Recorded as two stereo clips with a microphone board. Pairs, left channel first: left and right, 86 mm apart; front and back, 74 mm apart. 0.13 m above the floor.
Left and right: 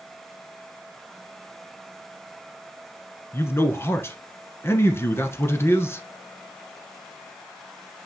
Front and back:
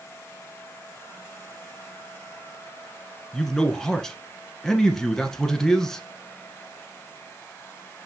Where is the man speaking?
80° left, 1.1 m.